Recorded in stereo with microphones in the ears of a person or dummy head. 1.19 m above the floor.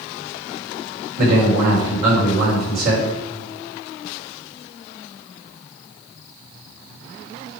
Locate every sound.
1.2 s a man speaking: 45° right (ahead or behind), 3.5 m